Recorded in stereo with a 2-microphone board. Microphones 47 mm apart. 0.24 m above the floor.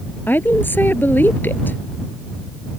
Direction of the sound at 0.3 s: 45° left (ahead or behind).